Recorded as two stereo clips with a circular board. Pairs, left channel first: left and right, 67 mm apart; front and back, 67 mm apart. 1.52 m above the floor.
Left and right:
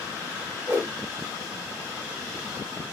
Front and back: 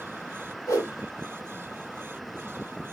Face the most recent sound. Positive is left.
turn(degrees=-15)